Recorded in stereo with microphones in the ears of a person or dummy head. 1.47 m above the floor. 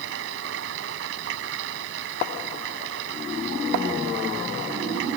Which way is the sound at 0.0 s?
80° right.